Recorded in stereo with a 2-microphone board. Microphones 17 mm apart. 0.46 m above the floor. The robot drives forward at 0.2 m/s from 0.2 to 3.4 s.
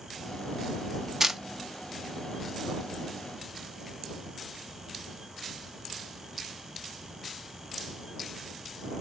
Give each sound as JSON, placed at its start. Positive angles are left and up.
{"t": 1.2, "sound": "a camera shutter", "side_deg": -30, "distance_m": 0.8}